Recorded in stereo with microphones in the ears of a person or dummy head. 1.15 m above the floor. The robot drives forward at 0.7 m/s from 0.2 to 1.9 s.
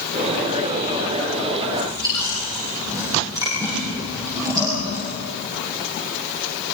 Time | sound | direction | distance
1.7 | chewing | 15° right (ahead or behind) | 8 m